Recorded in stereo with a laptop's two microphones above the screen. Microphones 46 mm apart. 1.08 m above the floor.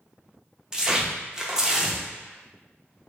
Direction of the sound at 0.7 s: 15° right (ahead or behind).